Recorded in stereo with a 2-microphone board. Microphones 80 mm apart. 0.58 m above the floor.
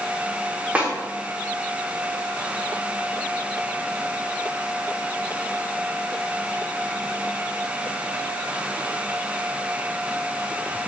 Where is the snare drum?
20° right (ahead or behind), 0.9 m.